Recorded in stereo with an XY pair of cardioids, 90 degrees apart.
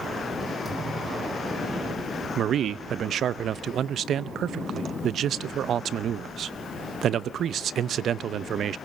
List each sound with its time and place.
0.7 s a thud: 35° right, 9.5 m
2.4 s a man speaking: 70° right, 0.6 m